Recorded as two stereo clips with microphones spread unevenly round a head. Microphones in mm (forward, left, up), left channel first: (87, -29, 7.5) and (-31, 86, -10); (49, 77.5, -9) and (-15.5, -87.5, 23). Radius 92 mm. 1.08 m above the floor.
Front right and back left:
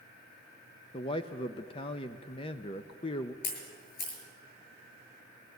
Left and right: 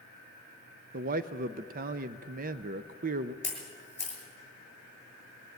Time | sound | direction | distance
0.9 | a man speaking | 95° right | 0.5 m
3.4 | a camera shutter | 15° right | 7 m